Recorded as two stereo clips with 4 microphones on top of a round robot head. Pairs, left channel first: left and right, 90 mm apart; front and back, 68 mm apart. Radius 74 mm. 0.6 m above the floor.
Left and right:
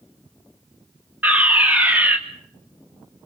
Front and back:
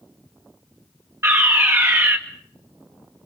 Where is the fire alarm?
155° right, 2.5 m.